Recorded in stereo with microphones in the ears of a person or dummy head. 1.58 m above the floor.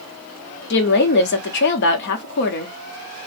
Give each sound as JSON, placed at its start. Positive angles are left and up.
{"t": 0.7, "sound": "a woman speaking", "side_deg": 60, "distance_m": 0.9}